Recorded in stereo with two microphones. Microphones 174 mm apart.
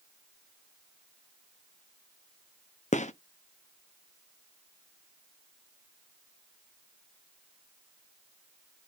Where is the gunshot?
45° left (ahead or behind), 0.6 m.